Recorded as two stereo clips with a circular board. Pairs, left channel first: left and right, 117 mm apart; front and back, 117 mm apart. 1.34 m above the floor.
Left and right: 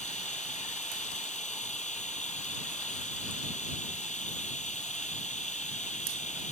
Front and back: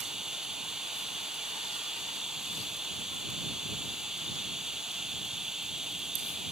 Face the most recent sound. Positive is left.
turn(degrees=95)